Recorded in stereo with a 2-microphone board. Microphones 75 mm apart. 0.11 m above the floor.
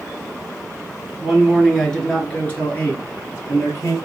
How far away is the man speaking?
About 1.3 m.